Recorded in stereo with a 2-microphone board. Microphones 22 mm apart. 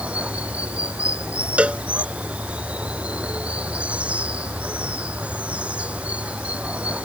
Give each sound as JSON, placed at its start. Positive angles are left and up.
{"t": 0.0, "sound": "running water", "side_deg": -75}
{"t": 1.6, "sound": "a cowbell", "side_deg": -65}